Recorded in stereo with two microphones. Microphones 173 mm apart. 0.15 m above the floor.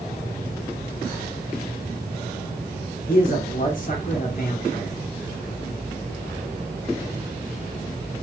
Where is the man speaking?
55° left (ahead or behind), 1.9 m.